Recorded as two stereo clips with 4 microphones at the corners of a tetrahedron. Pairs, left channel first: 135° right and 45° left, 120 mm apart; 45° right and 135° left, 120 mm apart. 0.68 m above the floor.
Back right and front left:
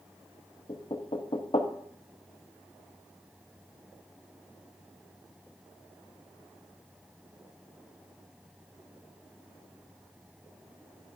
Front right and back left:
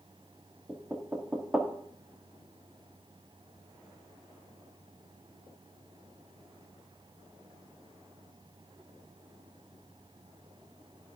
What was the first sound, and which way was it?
Knocking, 150° right.